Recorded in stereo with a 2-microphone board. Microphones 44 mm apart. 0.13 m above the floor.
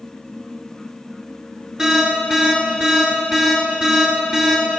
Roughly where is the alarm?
Centre.